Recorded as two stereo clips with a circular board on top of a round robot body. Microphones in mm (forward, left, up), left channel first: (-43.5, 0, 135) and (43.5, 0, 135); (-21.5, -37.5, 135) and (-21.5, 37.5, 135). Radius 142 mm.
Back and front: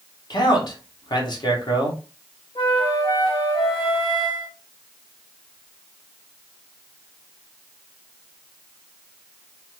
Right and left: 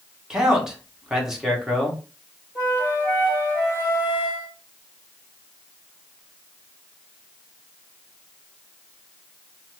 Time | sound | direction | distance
0.3 | a man speaking | 170° left | 1.3 m
2.5 | a flute | 150° right | 1.8 m